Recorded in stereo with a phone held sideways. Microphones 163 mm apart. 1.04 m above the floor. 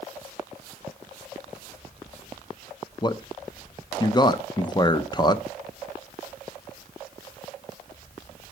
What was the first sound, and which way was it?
A man speaking, 25° left (ahead or behind).